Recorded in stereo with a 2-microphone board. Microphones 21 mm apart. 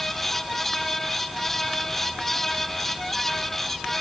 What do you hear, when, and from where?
Only background noise.